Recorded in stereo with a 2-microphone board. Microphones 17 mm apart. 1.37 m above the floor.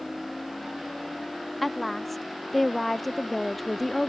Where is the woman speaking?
10° left (ahead or behind).